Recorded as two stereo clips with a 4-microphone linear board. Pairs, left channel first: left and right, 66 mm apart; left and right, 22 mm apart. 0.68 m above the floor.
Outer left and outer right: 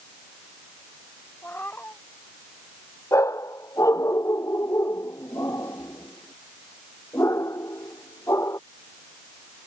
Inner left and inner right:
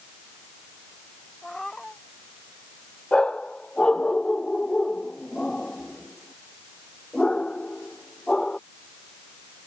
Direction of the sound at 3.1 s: 50° left (ahead or behind).